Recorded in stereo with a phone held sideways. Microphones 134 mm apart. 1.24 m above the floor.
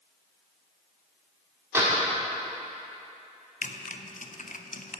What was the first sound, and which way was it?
A door slam, 20° right (ahead or behind).